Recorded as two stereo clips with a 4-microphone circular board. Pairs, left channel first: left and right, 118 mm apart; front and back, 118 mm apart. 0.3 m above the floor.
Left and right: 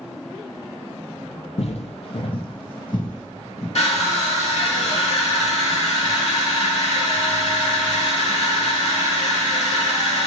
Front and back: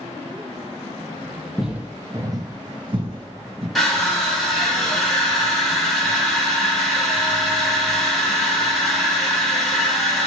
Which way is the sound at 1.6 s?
95° left.